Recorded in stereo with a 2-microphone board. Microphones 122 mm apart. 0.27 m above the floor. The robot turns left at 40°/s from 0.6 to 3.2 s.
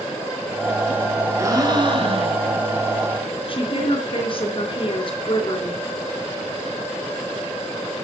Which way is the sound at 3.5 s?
45° left (ahead or behind).